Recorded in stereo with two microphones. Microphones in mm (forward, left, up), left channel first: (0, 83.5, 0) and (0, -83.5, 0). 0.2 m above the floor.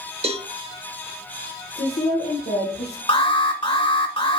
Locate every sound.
0.2 s a cowbell: 35° right (ahead or behind), 0.9 m
1.7 s a woman speaking: 60° left (ahead or behind), 4.5 m
3.1 s an alarm: 30° left (ahead or behind), 1.7 m